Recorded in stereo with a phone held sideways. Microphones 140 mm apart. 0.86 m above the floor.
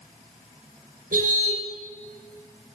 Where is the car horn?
85° right, 5.5 m.